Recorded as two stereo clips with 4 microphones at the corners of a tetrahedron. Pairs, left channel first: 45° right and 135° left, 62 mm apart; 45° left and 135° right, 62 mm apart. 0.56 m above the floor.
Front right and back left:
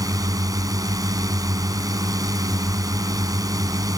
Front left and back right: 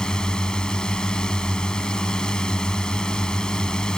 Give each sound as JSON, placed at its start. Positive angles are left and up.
{"t": 0.0, "sound": "a drone", "azimuth_deg": 120}